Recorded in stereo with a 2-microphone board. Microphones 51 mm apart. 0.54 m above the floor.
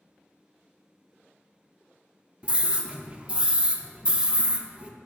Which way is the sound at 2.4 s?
20° right (ahead or behind).